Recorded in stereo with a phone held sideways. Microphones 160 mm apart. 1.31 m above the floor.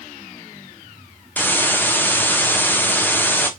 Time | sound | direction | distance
1.4 | a hiss | 10° left (ahead or behind) | 0.6 m